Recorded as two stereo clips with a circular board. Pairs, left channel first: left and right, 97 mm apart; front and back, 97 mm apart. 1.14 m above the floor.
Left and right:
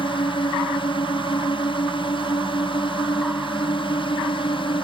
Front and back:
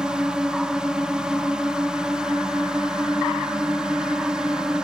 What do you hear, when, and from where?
0.0 s a drone: 100° left